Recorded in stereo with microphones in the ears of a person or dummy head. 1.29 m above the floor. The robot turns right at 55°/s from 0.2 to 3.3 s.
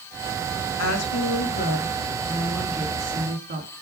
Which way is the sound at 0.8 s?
80° left.